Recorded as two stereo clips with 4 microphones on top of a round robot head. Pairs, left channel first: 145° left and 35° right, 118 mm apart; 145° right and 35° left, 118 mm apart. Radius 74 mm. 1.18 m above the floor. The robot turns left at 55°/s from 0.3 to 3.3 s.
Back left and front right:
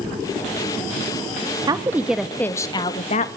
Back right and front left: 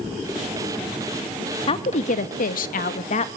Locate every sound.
1.7 s a woman speaking: 95° right, 1.7 m; by 3.3 s 175° left, 1.7 m